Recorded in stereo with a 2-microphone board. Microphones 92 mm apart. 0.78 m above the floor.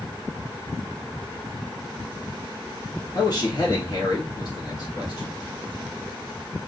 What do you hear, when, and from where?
3.1 s a man speaking: 50° left (ahead or behind), 1.6 m